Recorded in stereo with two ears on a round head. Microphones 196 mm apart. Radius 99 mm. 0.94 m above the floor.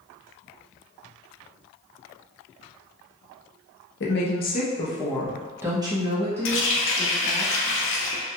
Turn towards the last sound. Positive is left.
turn(degrees=65)  # may be behind; listen again after turning